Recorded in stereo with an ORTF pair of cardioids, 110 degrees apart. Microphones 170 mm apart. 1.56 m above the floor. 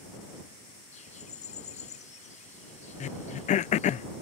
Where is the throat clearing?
45° left.